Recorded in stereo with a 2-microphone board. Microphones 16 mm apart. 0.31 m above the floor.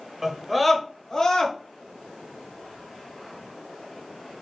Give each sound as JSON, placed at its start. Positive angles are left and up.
{"t": 0.2, "sound": "a scream", "side_deg": -25, "distance_m": 0.9}